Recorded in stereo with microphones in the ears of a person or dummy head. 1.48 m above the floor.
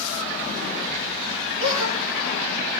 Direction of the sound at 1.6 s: 35° right (ahead or behind).